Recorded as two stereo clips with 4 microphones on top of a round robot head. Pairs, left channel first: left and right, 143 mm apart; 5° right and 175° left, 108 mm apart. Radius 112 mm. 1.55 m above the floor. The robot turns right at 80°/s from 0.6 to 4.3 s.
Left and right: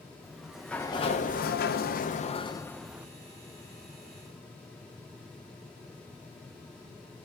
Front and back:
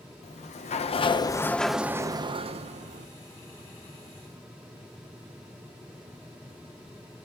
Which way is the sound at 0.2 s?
5° right.